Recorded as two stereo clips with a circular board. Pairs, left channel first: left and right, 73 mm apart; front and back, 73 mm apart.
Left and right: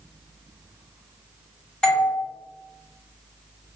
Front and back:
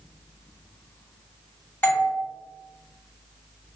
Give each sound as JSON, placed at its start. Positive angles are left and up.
{"t": 1.8, "sound": "a doorbell", "azimuth_deg": 25, "distance_m": 1.4}